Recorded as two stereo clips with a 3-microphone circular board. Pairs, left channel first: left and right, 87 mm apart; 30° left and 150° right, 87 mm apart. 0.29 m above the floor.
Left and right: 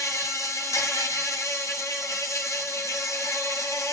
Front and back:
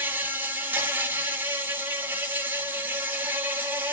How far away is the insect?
About 1.2 m.